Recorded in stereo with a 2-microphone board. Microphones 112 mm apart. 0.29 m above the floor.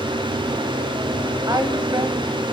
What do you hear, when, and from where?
1.5 s a woman speaking: 35° right (ahead or behind), 1.2 m